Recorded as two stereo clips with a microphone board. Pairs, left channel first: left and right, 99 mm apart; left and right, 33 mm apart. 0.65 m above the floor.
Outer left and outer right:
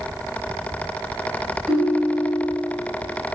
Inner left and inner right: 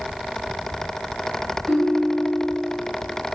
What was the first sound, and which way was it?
A ringtone, centre (ahead or behind).